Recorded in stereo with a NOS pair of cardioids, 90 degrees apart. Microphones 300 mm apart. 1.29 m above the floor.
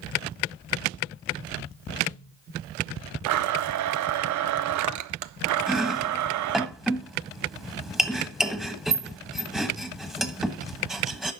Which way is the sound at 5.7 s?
Straight ahead.